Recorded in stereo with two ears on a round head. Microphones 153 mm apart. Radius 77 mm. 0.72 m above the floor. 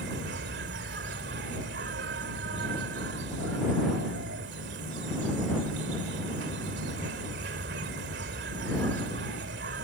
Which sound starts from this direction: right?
An insect, at 0.0 s.